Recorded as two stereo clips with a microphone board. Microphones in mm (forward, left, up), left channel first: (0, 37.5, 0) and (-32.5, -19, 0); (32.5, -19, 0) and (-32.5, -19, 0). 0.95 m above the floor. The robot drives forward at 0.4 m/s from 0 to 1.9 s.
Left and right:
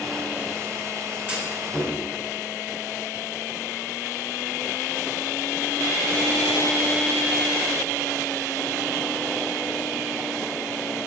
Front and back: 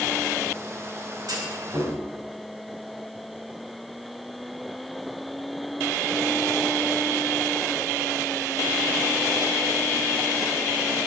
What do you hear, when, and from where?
1.3 s a clunk: 170° left, 3.5 m